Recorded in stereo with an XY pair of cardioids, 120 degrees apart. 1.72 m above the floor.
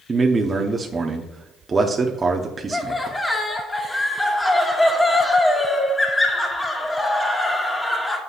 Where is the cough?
I don't hear a cough.